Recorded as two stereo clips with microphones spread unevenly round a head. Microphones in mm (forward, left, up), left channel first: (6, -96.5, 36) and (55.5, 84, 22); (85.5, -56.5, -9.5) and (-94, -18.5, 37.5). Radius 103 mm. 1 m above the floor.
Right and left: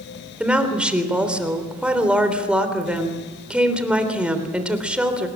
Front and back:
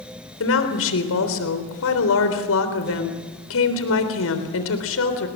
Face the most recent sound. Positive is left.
turn(degrees=-10)